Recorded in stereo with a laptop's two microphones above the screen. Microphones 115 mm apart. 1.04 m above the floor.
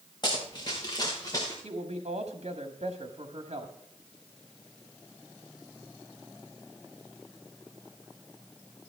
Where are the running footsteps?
40° left (ahead or behind), 4 m; by 1.5 s 30° left (ahead or behind), 5 m.